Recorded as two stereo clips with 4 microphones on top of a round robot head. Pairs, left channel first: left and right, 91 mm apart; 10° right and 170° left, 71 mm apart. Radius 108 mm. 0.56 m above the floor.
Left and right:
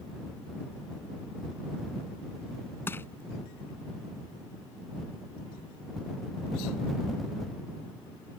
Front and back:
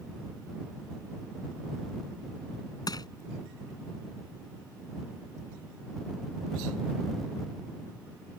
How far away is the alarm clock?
No alarm clock in this recording.